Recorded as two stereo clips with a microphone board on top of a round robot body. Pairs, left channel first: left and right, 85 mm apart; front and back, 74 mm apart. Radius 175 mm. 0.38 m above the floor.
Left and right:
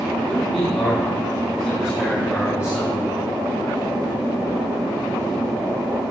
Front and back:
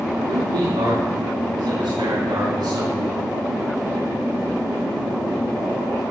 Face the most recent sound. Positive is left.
turn(degrees=150)